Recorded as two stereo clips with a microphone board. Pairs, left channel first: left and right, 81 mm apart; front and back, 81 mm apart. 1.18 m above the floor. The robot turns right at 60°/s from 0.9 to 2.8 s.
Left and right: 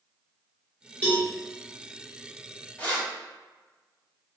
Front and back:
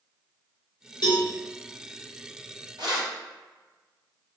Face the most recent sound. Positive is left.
turn(degrees=165)